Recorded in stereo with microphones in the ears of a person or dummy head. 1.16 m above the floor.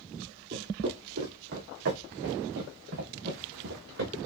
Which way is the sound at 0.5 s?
60° right (ahead or behind).